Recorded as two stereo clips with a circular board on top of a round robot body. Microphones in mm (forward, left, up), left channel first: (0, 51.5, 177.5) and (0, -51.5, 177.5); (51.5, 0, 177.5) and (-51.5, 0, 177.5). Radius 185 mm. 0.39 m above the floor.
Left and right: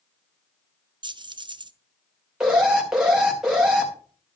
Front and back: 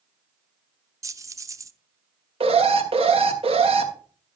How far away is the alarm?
About 3.5 m.